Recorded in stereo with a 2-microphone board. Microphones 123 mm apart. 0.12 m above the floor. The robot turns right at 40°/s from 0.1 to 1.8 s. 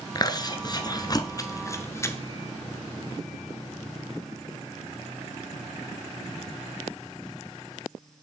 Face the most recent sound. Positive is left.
turn(degrees=25)  # may be behind; listen again after turning